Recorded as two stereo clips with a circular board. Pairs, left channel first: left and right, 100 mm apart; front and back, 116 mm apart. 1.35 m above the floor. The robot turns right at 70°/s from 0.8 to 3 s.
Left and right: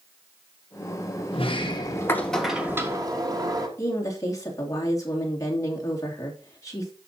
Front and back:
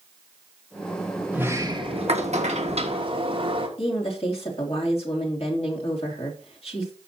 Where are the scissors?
No scissors in this recording.